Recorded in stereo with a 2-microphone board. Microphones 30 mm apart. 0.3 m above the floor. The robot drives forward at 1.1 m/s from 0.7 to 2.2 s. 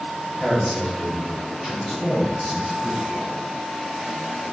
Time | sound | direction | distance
0.4 | a man speaking | 15° right (ahead or behind) | 1.1 m